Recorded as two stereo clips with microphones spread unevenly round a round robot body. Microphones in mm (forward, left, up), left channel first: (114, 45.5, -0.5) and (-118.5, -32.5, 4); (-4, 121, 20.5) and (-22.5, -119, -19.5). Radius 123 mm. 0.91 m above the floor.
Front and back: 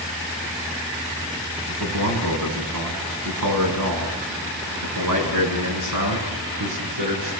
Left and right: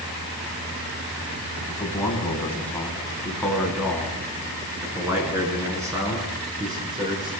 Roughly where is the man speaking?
Behind.